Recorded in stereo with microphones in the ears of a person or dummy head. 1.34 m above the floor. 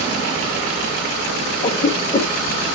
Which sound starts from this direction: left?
A cough, at 1.6 s.